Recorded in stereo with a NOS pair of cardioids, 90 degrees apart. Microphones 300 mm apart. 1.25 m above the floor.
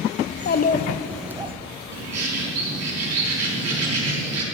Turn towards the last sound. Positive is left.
turn(degrees=-60)